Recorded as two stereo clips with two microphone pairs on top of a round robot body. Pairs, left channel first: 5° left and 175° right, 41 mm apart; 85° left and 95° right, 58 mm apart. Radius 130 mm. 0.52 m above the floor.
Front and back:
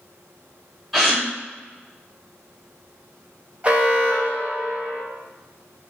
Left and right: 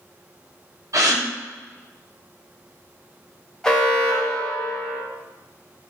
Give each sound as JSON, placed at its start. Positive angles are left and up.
{"t": 0.9, "sound": "a gasp", "azimuth_deg": -90, "distance_m": 1.6}
{"t": 3.6, "sound": "an alarm", "azimuth_deg": 175, "distance_m": 0.9}